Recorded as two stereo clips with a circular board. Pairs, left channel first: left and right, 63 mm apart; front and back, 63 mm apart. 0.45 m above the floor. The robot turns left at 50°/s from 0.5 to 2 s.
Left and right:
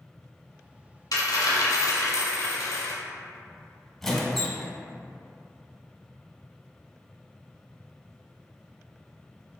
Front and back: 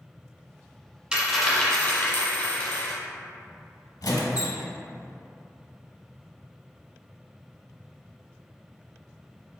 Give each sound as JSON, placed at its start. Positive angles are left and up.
{"t": 1.1, "sound": "a dropped coin", "azimuth_deg": 110, "distance_m": 1.0}
{"t": 4.0, "sound": "a squeak", "azimuth_deg": 5, "distance_m": 0.7}